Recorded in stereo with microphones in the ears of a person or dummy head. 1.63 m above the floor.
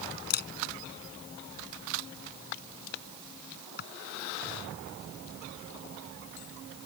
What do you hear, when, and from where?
0.3 s a camera shutter: 50° left (ahead or behind)